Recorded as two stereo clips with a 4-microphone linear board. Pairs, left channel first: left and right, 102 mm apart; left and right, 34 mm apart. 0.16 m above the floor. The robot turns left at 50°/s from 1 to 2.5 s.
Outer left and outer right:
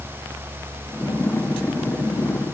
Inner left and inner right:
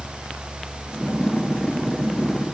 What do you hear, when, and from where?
Only background noise.